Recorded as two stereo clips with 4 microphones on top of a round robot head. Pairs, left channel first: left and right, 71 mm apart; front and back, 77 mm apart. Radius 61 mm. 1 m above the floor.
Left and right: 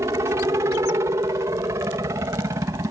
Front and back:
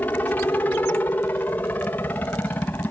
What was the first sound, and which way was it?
A helicopter, 65° right.